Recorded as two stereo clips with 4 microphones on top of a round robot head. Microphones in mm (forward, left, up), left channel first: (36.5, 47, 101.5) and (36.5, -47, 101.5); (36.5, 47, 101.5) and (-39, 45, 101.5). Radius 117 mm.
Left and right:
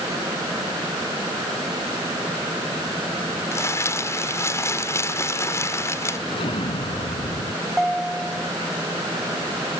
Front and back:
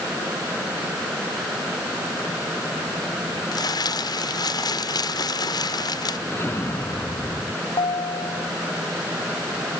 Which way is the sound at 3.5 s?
30° left.